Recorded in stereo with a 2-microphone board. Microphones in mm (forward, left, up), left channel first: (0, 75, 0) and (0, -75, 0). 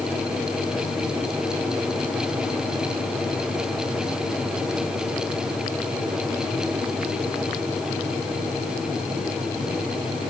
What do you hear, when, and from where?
Only background noise.